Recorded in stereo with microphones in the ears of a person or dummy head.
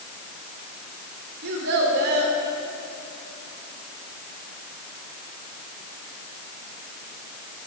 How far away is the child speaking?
About 3.5 m.